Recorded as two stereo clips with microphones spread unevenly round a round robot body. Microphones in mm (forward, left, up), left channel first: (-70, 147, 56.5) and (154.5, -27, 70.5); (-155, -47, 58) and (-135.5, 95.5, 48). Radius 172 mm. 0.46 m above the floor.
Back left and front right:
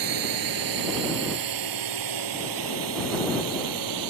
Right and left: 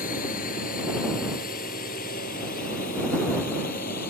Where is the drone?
45° right.